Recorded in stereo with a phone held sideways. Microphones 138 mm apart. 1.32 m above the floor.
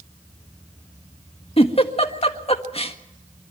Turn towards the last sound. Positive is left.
turn(degrees=45)  # may be behind; listen again after turning